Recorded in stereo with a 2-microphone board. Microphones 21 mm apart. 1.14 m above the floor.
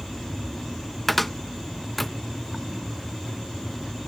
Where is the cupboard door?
10° left (ahead or behind).